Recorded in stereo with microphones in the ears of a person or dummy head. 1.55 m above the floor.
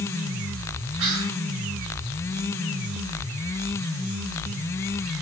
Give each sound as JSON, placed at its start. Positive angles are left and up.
{"t": 1.0, "sound": "whispering", "side_deg": -70, "distance_m": 1.0}